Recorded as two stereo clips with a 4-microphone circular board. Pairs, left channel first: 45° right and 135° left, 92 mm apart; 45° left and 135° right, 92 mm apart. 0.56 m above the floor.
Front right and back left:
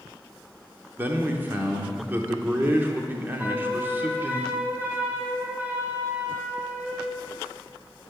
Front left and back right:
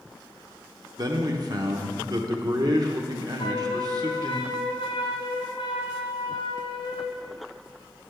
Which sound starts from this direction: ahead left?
A flute, at 3.4 s.